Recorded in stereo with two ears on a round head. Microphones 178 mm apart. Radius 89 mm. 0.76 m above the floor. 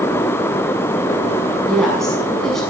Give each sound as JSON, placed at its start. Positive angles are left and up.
{"t": 1.7, "sound": "a woman speaking", "side_deg": 0, "distance_m": 7.0}